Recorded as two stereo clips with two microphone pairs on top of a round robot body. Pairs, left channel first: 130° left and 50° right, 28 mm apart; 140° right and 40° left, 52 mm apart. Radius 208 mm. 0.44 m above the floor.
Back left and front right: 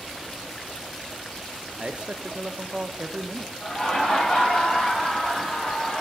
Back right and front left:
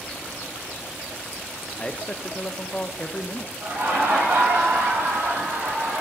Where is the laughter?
85° left, 6.5 m.